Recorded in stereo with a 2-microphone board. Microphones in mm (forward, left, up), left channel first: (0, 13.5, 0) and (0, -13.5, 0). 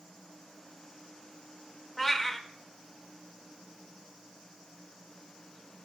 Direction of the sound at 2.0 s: 15° left (ahead or behind).